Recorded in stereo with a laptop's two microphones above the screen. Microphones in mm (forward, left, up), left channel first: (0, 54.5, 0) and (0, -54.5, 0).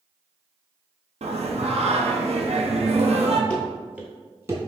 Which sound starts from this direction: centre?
Running footsteps, at 3.5 s.